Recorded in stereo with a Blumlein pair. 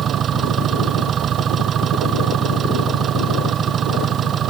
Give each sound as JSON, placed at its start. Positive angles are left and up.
{"t": 0.0, "sound": "an engine running", "azimuth_deg": -25}